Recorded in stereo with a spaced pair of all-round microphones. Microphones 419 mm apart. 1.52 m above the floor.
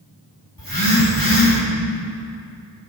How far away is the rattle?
I don't hear a rattle.